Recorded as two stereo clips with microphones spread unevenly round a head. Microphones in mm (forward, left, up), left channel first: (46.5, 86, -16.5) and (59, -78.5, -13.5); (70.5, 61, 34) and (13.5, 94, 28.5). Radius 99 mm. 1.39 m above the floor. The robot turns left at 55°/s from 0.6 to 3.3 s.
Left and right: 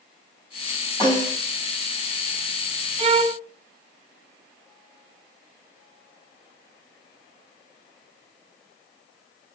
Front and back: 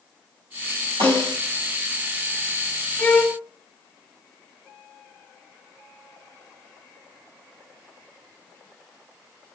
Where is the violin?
90° right, 0.8 m; by 3.4 s 105° right, 0.8 m.